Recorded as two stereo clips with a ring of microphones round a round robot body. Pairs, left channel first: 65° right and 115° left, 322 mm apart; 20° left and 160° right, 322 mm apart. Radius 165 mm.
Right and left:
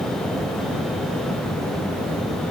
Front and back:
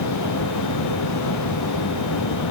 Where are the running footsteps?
I don't hear running footsteps.